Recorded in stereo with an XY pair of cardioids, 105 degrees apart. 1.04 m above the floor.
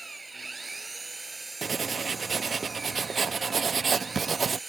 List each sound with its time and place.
0.0 s an engine running: 25° right
1.6 s writing: 40° right